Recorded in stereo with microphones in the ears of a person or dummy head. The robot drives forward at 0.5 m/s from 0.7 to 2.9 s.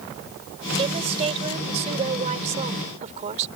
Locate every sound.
0.8 s a woman speaking: 35° right (ahead or behind); by 3.5 s 40° right (ahead or behind)